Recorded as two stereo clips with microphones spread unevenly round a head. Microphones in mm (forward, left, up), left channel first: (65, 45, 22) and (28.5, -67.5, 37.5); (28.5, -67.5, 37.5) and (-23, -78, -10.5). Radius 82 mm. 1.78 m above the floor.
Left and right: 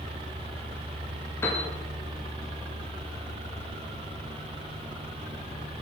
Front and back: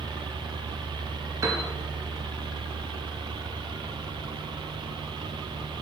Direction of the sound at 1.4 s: 150° left.